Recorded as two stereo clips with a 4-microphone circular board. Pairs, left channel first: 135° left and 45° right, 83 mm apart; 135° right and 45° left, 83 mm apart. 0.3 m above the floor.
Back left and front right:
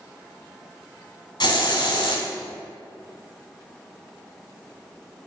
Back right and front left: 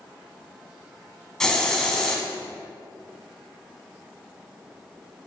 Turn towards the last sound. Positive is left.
turn(degrees=140)